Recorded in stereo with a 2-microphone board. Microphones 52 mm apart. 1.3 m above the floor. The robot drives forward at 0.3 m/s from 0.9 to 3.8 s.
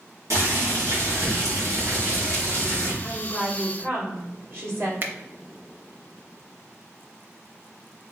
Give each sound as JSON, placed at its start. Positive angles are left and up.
{"t": 0.3, "sound": "boiling", "side_deg": -65, "distance_m": 1.9}
{"t": 3.0, "sound": "a woman speaking", "side_deg": -55, "distance_m": 1.9}
{"t": 5.0, "sound": "a finger snap", "side_deg": -45, "distance_m": 0.5}